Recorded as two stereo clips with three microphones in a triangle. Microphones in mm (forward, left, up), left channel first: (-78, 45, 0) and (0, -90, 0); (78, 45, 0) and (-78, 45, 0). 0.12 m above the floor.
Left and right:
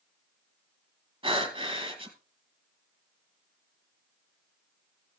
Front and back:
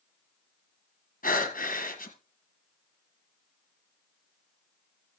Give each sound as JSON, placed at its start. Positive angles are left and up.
{"t": 1.2, "sound": "breathing", "azimuth_deg": -5, "distance_m": 1.6}